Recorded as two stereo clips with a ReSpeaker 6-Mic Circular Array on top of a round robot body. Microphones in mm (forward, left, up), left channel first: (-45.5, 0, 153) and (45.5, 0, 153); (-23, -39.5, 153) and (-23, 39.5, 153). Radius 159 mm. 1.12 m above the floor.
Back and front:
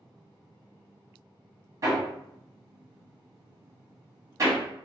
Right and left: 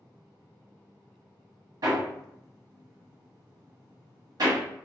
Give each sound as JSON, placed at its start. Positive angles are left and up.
{"t": 1.8, "sound": "hammering", "azimuth_deg": 55, "distance_m": 1.0}